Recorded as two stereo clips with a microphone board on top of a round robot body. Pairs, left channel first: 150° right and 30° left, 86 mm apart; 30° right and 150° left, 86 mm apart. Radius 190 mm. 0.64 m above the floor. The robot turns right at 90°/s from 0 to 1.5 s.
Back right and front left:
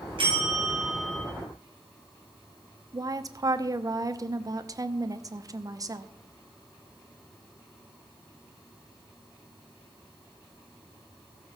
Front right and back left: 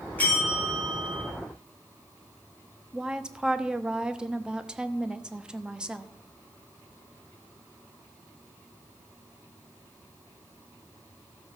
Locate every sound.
0.2 s a bell: 40° left, 6 m; by 1.2 s 135° left, 6 m
2.9 s a woman speaking: 75° left, 1.1 m